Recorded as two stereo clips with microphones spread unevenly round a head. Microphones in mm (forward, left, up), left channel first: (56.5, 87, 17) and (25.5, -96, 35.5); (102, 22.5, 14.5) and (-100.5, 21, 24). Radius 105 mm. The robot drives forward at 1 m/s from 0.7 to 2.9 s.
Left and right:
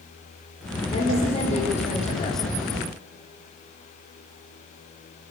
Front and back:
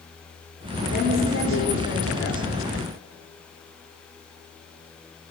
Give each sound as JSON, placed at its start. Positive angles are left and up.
{"t": 0.9, "sound": "a woman speaking", "azimuth_deg": 20, "distance_m": 5.0}